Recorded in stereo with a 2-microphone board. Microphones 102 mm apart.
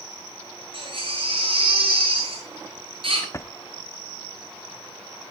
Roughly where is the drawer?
Left.